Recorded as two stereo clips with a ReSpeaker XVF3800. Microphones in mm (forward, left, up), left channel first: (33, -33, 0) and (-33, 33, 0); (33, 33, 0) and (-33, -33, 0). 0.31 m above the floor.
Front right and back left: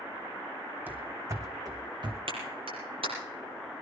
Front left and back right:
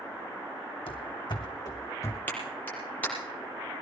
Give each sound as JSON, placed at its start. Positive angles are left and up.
{"t": 0.9, "sound": "running footsteps", "azimuth_deg": 65, "distance_m": 1.3}
{"t": 2.3, "sound": "a clap", "azimuth_deg": 115, "distance_m": 7.0}